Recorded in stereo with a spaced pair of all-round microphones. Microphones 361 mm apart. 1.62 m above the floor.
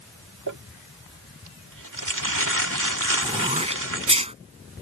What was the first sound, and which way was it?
Crumpling, 65° right (ahead or behind).